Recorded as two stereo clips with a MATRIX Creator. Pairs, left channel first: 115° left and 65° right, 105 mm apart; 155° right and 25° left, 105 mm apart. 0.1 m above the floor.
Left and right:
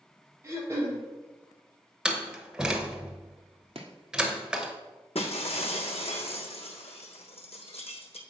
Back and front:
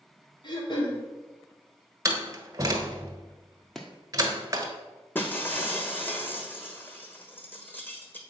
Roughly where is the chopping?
Right.